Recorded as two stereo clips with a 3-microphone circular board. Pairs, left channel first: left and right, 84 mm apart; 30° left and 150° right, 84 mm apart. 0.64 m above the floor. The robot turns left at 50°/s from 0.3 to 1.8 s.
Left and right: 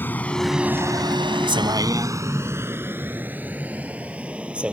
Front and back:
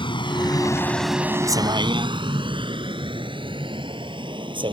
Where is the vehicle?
25° left; by 4.7 s 165° right.